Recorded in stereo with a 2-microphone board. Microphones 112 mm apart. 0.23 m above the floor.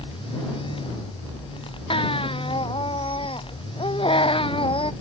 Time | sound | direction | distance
1.9 | a baby crying | 55° left (ahead or behind) | ?